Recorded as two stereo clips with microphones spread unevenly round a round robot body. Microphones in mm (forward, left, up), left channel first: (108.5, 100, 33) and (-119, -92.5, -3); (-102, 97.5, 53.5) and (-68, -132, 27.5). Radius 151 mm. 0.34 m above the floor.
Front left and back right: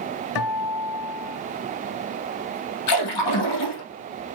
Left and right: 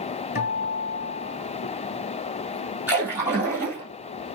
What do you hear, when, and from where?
0.3 s a guitar: 40° left, 1.6 m
2.9 s a splash: straight ahead, 3.5 m